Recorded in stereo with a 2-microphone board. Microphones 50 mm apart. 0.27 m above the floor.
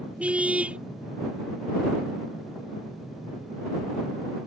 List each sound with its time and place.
0.2 s a car horn: 25° right (ahead or behind)